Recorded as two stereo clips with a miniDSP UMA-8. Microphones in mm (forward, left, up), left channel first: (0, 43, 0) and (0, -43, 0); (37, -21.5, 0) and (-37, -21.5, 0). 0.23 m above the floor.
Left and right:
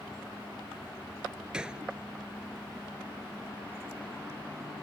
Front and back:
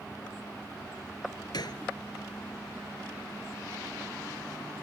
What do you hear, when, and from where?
1.5 s a gunshot: 10° right